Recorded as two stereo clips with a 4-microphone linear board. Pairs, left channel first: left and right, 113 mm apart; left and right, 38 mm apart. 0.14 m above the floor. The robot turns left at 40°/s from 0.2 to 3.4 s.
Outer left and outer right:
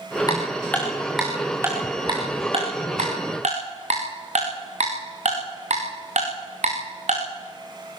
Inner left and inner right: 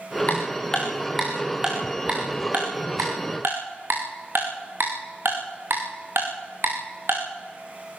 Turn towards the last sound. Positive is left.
turn(degrees=-85)